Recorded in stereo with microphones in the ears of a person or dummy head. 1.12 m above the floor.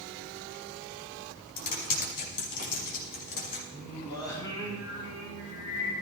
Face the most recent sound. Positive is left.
turn(degrees=25)  # may be behind; listen again after turning